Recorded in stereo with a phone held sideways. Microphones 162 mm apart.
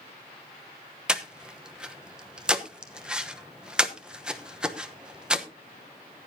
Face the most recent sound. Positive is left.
turn(degrees=-5)  # may be behind; listen again after turning